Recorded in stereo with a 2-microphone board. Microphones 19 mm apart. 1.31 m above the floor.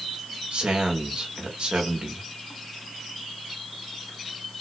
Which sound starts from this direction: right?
A man speaking, at 0.5 s.